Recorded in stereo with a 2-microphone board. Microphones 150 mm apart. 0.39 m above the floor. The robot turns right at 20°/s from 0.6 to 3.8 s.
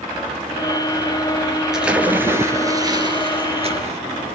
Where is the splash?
175° right, 1.7 m; by 4.0 s 135° right, 1.7 m.